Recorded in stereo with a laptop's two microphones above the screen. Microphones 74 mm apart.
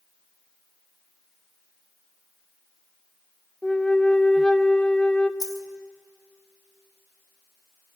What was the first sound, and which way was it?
A flute, 10° left (ahead or behind).